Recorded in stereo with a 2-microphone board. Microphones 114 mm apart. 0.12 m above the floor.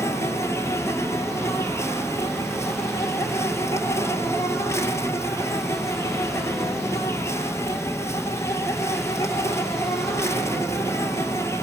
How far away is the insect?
About 2 m.